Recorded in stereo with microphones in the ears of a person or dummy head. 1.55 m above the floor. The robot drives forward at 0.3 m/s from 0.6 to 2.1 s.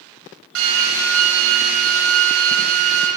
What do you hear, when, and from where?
0.6 s a drill: 85° right, 9 m; by 3.1 s 90° right, 9 m